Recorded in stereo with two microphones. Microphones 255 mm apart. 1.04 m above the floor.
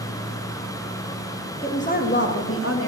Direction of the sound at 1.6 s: 20° left (ahead or behind).